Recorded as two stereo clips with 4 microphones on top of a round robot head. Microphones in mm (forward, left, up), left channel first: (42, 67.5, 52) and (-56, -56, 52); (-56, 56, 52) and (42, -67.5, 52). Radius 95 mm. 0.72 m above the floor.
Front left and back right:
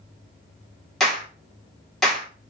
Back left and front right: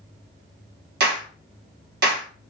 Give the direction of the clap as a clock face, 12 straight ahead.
1 o'clock.